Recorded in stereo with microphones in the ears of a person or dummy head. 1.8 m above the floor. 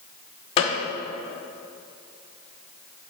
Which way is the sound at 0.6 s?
30° left (ahead or behind).